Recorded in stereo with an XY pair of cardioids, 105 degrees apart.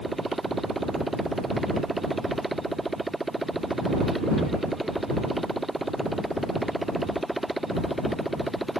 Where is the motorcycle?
15° right; by 8.8 s 5° right.